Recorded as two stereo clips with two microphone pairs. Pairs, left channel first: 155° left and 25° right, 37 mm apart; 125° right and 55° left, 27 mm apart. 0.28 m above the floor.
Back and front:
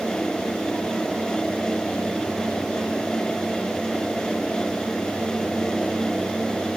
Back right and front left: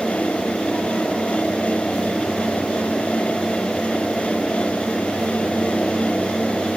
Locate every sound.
Only background noise.